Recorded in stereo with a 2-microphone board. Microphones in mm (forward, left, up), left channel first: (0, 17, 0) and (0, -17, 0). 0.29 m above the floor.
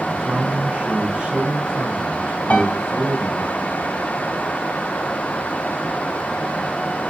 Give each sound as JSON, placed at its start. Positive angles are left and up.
{"t": 0.2, "sound": "a man speaking", "side_deg": -55, "distance_m": 2.5}
{"t": 2.5, "sound": "a piano", "side_deg": 40, "distance_m": 2.0}